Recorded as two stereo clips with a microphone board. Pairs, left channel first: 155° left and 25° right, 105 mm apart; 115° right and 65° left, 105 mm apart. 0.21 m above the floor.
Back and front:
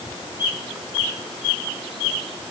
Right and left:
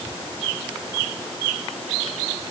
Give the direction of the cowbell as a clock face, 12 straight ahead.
No cowbell in this recording.